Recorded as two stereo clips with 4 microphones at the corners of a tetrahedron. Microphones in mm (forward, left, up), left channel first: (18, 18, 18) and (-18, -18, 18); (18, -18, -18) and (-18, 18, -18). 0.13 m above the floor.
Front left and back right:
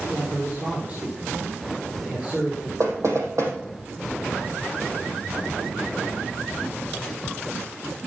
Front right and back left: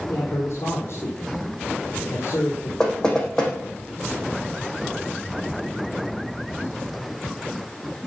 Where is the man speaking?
75° right, 4.5 m.